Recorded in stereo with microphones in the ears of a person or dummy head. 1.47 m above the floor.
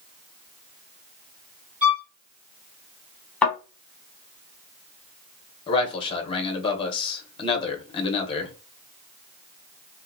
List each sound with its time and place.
1.8 s a violin: 5° right (ahead or behind), 1.2 m
3.4 s a thud: 10° left (ahead or behind), 1.0 m
5.7 s a man speaking: 30° left (ahead or behind), 0.8 m